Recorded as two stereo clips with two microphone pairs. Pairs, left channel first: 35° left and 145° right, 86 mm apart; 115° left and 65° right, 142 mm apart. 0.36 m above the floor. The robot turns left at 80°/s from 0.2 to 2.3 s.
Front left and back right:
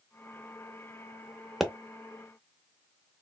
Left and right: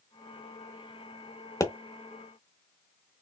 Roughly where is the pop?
Behind left.